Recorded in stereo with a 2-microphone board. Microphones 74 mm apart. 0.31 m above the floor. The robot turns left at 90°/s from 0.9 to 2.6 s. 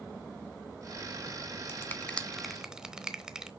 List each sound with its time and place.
1.7 s a finger snap: 35° left (ahead or behind), 1.0 m; by 3.5 s 10° right (ahead or behind), 1.0 m